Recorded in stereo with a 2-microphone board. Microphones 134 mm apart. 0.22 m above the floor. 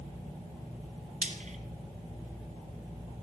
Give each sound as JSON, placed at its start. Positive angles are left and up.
{"t": 1.2, "sound": "frying", "side_deg": -60, "distance_m": 1.4}